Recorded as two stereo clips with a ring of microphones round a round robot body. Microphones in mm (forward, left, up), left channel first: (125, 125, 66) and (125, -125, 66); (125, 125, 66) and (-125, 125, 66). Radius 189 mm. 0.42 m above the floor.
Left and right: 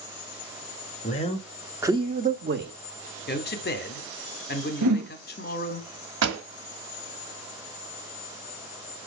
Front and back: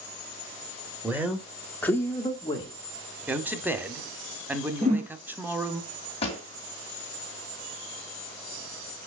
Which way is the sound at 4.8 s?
110° right.